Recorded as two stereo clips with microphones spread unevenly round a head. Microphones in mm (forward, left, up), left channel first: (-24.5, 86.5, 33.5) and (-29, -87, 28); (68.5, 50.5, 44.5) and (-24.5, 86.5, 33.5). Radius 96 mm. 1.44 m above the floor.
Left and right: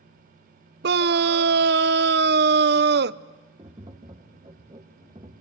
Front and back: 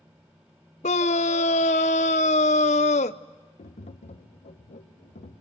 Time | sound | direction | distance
0.8 | a scream | 50° right | 0.5 m
3.6 | tapping | 20° right | 1.2 m